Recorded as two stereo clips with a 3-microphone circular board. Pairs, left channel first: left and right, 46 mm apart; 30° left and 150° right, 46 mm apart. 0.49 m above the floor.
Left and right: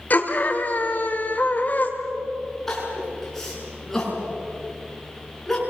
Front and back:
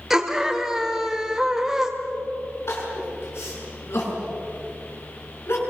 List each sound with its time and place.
0.1 s a scream: 130° left, 2.5 m
2.7 s crying: 10° left, 7.5 m